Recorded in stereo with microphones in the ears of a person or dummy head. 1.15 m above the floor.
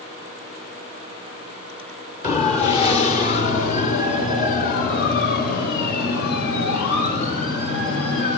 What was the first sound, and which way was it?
A siren, 35° left (ahead or behind).